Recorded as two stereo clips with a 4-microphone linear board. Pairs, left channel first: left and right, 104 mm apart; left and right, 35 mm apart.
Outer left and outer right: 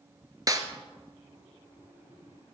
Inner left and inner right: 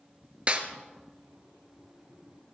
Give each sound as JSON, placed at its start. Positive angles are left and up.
{"t": 0.5, "sound": "a snare drum", "side_deg": -35, "distance_m": 1.2}